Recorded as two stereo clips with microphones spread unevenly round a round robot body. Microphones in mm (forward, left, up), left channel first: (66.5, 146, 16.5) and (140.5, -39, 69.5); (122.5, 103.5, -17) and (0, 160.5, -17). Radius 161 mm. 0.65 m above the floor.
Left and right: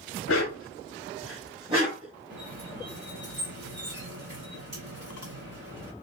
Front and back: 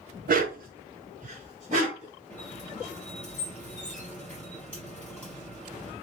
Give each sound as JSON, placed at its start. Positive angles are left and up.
{"t": 0.3, "sound": "a dog barking", "azimuth_deg": 160, "distance_m": 0.6}
{"t": 2.3, "sound": "a squeak", "azimuth_deg": -110, "distance_m": 0.9}